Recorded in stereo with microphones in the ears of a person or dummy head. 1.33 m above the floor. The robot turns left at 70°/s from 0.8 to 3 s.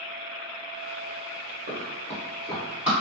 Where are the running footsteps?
40° right (ahead or behind), 1.8 m; by 2.9 s centre (ahead or behind), 2 m.